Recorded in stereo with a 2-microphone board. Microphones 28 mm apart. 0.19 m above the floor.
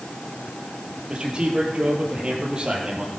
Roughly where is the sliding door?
I don't hear a sliding door.